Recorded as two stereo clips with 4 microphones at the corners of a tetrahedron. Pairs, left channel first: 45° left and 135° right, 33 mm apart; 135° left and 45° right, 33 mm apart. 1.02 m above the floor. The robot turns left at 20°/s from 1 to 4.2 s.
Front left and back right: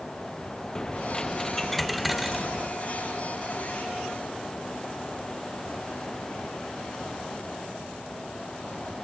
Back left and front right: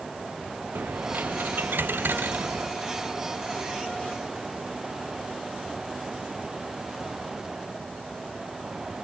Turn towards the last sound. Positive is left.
turn(degrees=-85)